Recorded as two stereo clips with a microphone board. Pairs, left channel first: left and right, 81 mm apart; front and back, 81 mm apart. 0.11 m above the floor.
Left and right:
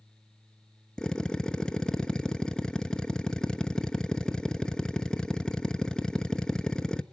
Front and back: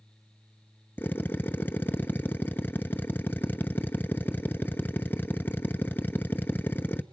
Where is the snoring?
I don't hear snoring.